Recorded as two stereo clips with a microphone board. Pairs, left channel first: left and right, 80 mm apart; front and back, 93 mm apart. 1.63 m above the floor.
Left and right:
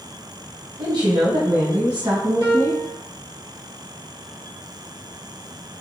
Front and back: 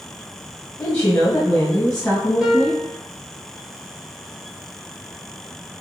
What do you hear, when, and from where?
0.8 s a woman speaking: 65° right, 1.2 m; by 2.8 s 80° right, 2 m
2.4 s a piano: 100° right, 1.6 m